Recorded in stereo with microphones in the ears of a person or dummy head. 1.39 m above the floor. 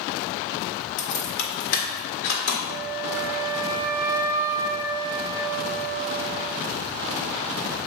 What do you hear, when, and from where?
1.0 s keys jangling: 65° left (ahead or behind), 1.3 m; by 2.6 s 50° left (ahead or behind), 1.9 m
2.7 s a flute: 20° right (ahead or behind), 0.7 m